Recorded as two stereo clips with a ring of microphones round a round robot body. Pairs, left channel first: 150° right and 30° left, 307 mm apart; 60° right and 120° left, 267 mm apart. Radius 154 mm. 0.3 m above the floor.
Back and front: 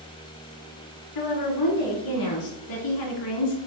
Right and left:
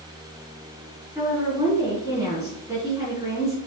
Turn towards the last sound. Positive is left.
turn(degrees=-160)